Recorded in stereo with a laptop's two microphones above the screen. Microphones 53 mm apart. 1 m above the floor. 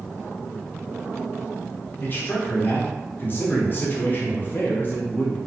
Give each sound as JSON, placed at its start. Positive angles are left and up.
{"t": 2.0, "sound": "a man speaking", "side_deg": 35, "distance_m": 0.6}